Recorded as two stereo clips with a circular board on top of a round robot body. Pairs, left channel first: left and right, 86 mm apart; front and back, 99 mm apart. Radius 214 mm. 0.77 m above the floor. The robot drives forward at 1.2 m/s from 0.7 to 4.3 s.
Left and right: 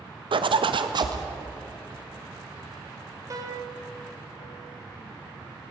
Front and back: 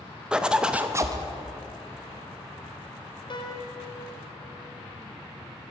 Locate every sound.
0.3 s a zipper: 100° right, 0.9 m; by 1.2 s 130° right, 1.2 m
3.3 s a piano: 40° right, 1.8 m; by 3.8 s 55° right, 1.4 m